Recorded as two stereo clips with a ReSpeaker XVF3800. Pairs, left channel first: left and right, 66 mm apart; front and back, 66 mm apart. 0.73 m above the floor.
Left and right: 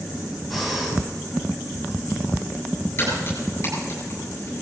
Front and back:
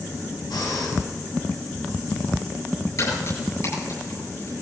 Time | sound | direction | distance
0.5 | breathing | straight ahead | 4 m
3.0 | a crack | 35° left | 9.5 m